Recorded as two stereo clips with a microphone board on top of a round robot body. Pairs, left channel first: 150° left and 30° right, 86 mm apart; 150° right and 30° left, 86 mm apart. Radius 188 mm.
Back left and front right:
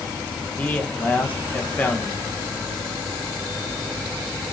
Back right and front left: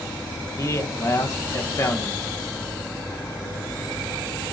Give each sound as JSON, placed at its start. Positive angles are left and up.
{"t": 0.6, "sound": "a man speaking", "azimuth_deg": -150, "distance_m": 1.3}